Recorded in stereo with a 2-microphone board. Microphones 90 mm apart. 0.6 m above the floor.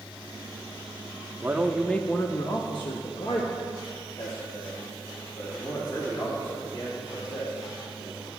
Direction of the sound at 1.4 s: 20° right (ahead or behind).